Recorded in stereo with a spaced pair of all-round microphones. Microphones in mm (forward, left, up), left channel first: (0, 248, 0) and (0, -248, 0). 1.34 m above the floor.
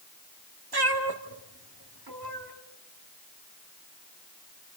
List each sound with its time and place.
0.7 s a cat meowing: 50° right (ahead or behind), 1.9 m